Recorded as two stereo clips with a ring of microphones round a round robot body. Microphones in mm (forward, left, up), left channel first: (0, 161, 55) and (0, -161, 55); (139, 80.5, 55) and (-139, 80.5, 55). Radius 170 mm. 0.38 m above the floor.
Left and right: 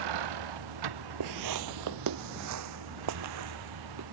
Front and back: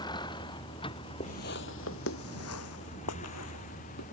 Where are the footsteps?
70° right; by 4.0 s 45° right.